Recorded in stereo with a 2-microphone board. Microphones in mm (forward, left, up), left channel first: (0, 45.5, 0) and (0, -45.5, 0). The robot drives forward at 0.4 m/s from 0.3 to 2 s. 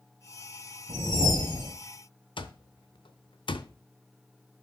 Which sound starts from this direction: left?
An alarm clock, at 2.4 s.